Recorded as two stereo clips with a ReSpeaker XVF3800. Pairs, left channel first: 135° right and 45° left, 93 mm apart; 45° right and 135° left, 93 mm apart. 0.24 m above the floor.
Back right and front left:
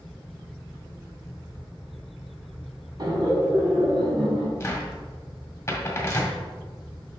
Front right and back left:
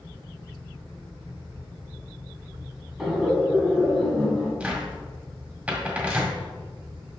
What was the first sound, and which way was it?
Laughter, 50° left.